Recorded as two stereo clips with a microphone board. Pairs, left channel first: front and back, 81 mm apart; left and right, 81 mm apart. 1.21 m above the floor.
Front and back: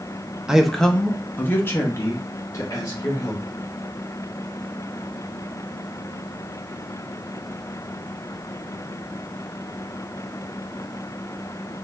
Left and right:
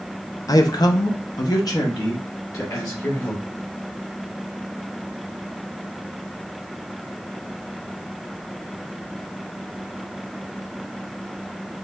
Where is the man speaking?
105° left, 0.6 m; by 3.4 s 45° left, 1.8 m.